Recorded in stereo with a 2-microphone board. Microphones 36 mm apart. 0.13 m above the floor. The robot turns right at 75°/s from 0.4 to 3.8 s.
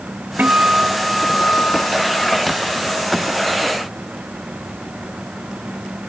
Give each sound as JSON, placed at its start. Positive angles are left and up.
{"t": 0.4, "sound": "a guitar", "azimuth_deg": -55}